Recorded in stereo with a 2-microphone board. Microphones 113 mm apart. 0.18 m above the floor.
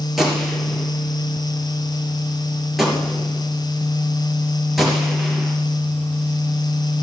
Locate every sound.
0.2 s a gunshot: centre (ahead or behind), 3.5 m